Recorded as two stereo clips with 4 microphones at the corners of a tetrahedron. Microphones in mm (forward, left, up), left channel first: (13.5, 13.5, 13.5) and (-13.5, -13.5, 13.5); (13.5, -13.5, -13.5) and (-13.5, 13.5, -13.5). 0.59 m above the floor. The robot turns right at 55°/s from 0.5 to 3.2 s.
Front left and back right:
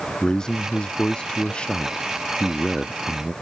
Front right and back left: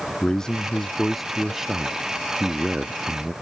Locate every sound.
0.2 s a man speaking: 5° left; by 3.3 s 150° left